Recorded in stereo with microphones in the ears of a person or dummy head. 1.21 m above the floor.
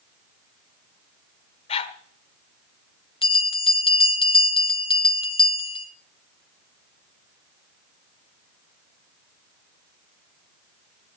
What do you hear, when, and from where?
1.7 s a dog barking: 35° left (ahead or behind), 1.4 m
3.2 s a bell: 30° left (ahead or behind), 1.0 m